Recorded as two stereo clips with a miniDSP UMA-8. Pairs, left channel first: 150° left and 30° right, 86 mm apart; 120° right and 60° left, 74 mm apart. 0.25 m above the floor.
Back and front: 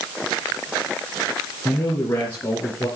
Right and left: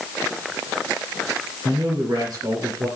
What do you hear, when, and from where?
1.6 s a man speaking: 100° left, 4 m; by 2.9 s 95° left, 5 m